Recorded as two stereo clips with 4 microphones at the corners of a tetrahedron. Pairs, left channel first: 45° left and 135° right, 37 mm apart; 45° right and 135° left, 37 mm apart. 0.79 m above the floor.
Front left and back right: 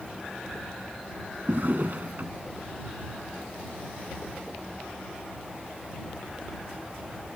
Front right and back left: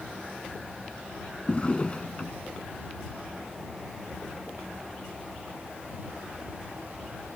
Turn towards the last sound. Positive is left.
turn(degrees=-100)